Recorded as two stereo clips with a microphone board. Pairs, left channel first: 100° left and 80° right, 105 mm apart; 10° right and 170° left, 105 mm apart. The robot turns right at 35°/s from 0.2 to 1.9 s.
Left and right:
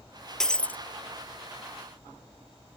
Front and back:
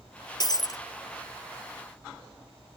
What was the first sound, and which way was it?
Breaking glass, 15° left.